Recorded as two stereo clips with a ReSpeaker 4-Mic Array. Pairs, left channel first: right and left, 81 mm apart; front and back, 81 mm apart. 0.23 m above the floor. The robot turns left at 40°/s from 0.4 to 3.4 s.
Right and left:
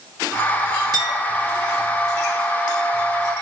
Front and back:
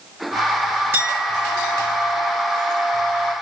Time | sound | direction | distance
0.9 | a clink | 120° left | 3 m